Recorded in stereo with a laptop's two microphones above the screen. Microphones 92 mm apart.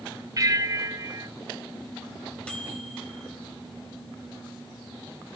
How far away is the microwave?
About 3.5 m.